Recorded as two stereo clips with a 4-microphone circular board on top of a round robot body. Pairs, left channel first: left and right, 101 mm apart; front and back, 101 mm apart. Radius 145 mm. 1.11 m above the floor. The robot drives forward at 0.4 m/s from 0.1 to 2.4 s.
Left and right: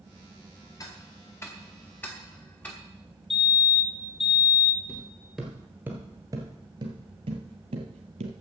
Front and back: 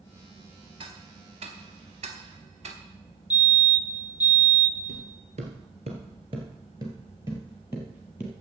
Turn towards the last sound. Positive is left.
turn(degrees=-100)